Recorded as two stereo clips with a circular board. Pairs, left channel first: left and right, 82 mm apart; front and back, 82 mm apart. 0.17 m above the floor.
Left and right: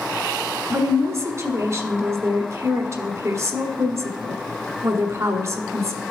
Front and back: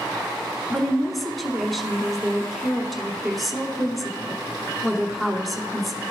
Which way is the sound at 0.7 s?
90° right.